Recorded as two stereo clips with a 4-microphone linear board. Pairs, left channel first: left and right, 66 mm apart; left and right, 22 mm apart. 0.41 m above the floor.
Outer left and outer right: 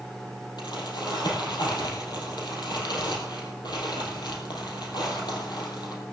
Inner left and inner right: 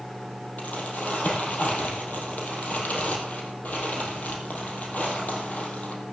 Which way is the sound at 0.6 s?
80° left.